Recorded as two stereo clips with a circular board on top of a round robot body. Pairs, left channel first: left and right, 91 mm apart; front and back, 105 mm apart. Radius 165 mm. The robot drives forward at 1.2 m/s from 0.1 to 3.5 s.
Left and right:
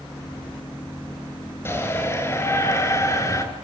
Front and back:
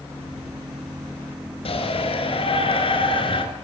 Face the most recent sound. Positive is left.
turn(degrees=35)